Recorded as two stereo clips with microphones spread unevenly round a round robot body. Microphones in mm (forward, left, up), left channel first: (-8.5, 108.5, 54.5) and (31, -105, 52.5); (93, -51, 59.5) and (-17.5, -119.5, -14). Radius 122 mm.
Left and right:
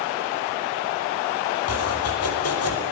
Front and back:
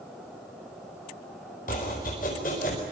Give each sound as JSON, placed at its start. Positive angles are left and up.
{"t": 1.7, "sound": "chopping", "azimuth_deg": 90, "distance_m": 5.0}